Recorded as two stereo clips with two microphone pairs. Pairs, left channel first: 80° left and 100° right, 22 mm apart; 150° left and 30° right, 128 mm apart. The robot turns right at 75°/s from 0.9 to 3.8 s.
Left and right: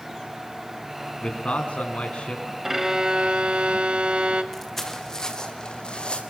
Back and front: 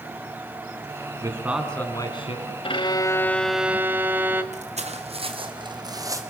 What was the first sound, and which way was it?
A man speaking, 30° left.